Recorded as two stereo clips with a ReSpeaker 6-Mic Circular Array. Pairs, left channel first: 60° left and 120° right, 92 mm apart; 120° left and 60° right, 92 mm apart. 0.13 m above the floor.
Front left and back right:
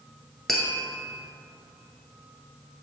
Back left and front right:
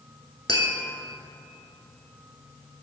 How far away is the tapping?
About 1.0 m.